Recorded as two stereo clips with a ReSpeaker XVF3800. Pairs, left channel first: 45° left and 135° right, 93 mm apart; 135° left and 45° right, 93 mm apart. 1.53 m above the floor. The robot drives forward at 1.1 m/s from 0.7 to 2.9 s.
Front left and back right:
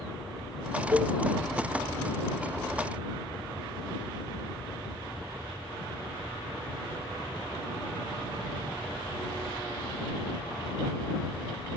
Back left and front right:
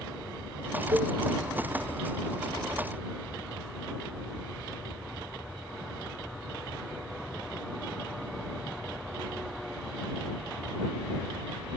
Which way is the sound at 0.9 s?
80° right.